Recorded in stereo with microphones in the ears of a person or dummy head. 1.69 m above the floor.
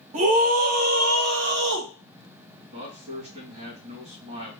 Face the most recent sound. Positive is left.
turn(degrees=-35)  # may be behind; listen again after turning